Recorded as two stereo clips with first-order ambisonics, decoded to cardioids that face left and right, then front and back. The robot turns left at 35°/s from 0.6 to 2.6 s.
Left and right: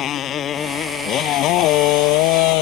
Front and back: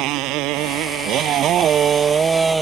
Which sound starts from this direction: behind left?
A motorcycle, at 0.0 s.